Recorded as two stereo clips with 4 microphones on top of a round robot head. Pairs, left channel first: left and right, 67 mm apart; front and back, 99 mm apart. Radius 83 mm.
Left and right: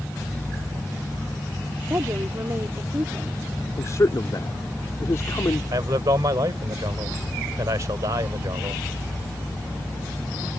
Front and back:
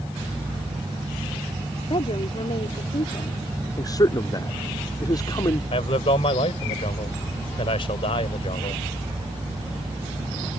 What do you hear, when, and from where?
1.9 s a woman speaking: 35° right
3.8 s a man speaking: 45° left
5.7 s a man speaking: 40° right